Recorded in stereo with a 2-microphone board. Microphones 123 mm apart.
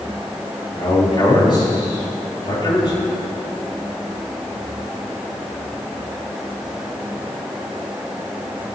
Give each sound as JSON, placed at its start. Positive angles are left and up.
{"t": 0.7, "sound": "a man speaking", "side_deg": 40, "distance_m": 5.5}